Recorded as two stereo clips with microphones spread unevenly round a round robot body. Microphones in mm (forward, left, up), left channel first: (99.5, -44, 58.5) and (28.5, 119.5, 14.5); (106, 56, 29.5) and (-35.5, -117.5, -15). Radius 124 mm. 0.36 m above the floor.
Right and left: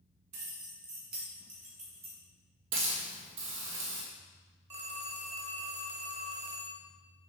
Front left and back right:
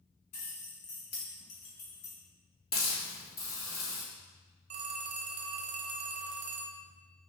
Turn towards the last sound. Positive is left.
turn(degrees=180)